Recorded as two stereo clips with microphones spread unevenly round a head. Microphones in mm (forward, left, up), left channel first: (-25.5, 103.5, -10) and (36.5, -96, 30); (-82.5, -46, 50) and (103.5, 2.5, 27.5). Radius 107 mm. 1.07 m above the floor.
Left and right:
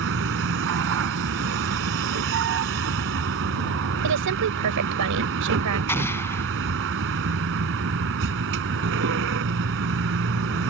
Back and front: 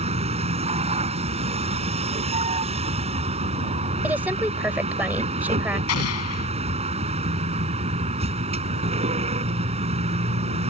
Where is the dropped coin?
No dropped coin in this recording.